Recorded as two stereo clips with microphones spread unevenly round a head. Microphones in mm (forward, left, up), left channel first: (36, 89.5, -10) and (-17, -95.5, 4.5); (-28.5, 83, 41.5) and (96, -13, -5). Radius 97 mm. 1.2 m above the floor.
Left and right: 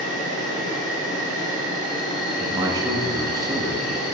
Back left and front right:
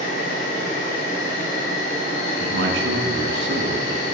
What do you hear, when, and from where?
0.0 s an insect: 145° left, 4.5 m
2.4 s a man speaking: 35° right, 1.5 m